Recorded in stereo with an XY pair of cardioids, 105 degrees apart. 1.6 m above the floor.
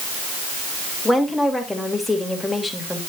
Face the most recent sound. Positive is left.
turn(degrees=5)